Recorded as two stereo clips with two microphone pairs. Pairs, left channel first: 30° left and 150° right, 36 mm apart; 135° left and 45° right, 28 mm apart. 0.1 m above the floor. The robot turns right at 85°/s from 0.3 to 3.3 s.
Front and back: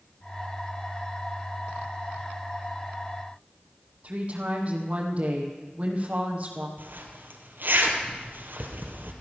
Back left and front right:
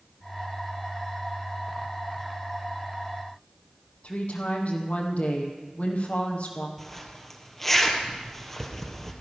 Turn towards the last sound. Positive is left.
turn(degrees=-145)